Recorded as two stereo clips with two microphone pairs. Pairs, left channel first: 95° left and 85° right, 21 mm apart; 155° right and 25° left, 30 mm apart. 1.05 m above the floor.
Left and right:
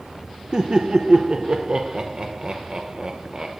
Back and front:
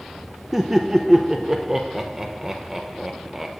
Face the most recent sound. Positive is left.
turn(degrees=-50)